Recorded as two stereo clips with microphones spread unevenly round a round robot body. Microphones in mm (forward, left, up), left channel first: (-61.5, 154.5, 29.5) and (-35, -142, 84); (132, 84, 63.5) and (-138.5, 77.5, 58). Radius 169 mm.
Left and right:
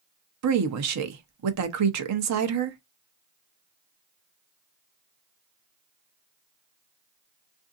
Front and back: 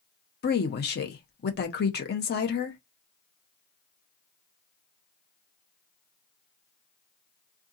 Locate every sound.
0.4 s a woman speaking: 50° right, 0.7 m